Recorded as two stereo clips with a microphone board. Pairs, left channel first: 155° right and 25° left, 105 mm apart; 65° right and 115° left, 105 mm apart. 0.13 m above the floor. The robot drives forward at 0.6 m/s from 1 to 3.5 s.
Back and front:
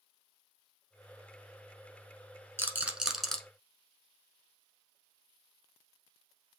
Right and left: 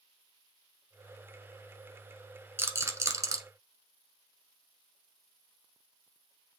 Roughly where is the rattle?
Ahead left.